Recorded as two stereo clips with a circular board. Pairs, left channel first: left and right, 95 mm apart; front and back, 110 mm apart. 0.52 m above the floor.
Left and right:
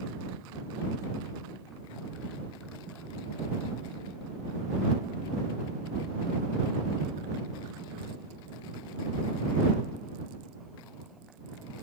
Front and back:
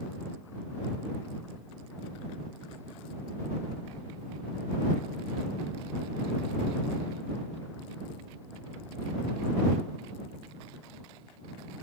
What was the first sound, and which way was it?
Only background noise.